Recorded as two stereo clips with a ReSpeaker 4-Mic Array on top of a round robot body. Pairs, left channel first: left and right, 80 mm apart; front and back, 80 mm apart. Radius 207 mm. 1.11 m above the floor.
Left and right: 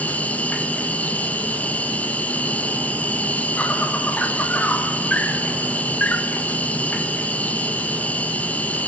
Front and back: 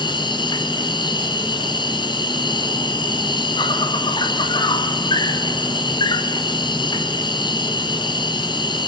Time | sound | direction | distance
0.0 | an insect | 15° left | 2.0 m